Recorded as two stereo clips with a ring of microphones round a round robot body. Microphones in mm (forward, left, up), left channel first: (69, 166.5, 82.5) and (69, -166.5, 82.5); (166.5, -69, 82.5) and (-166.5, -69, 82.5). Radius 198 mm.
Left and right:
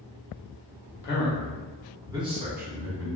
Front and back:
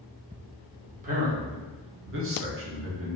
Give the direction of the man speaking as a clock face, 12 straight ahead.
8 o'clock.